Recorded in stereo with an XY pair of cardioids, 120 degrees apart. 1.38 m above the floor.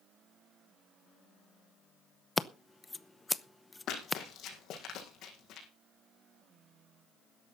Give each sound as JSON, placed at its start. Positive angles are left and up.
{"t": 2.4, "sound": "scissors", "azimuth_deg": 20, "distance_m": 0.8}
{"t": 3.9, "sound": "running footsteps", "azimuth_deg": 70, "distance_m": 5.0}